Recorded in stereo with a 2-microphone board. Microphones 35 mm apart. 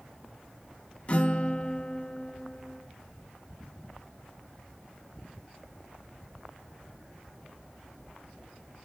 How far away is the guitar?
About 0.8 m.